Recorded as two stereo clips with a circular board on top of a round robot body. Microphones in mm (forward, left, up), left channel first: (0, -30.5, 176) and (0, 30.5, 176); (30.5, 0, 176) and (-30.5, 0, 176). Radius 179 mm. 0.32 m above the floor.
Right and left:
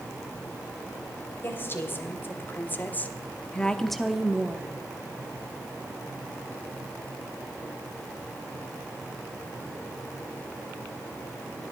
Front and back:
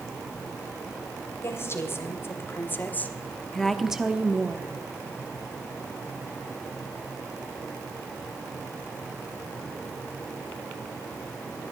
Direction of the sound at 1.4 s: 40° right.